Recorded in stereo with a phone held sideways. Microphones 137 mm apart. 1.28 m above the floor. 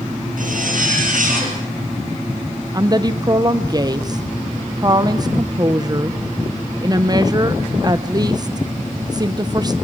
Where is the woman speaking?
30° right (ahead or behind), 0.8 m.